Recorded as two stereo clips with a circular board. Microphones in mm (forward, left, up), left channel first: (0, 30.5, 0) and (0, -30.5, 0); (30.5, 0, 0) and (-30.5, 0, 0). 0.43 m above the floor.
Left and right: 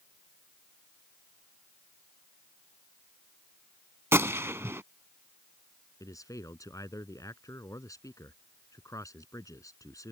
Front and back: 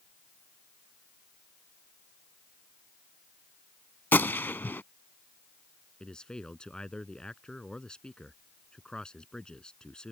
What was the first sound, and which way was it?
A gunshot, 50° right.